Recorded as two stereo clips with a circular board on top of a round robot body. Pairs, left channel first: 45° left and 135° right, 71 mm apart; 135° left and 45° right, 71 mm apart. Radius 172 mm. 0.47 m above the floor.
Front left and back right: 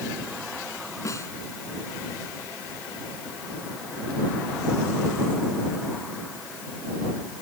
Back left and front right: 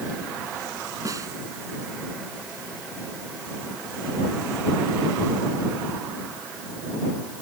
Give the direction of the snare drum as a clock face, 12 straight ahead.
12 o'clock.